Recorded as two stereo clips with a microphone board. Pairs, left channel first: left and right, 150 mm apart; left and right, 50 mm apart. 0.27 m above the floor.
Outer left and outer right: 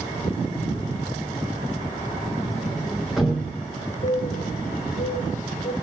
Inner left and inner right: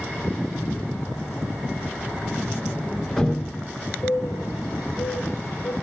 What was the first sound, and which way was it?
A sliding door, centre (ahead or behind).